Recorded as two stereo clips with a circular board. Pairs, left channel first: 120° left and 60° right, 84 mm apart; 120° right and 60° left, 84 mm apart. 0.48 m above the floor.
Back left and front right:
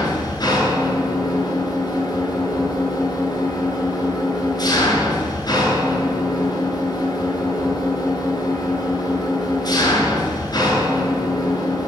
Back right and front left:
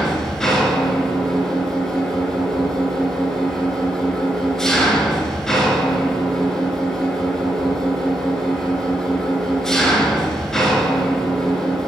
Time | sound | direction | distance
0.0 | an engine running | 155° left | 3 m